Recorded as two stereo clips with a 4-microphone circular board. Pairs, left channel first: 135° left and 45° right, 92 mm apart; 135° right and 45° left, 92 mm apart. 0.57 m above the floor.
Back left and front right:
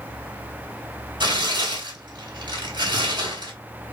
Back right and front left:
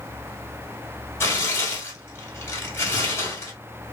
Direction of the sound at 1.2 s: 75° right.